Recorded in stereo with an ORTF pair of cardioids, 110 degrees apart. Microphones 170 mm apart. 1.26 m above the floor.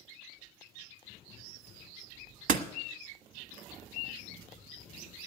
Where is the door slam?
65° right, 1.2 m.